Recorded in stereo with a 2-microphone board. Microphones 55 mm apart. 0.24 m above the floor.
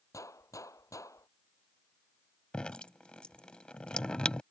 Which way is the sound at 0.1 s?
80° left.